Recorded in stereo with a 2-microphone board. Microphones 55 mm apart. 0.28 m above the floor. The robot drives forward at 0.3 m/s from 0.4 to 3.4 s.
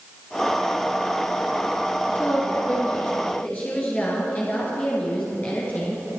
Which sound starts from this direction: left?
A woman speaking, at 2.1 s.